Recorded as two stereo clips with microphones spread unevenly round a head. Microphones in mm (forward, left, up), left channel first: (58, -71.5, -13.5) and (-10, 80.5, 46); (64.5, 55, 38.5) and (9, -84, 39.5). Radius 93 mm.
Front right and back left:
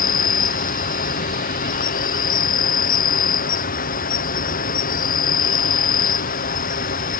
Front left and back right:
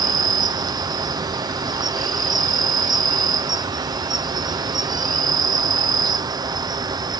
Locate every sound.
0.0 s an insect: 50° right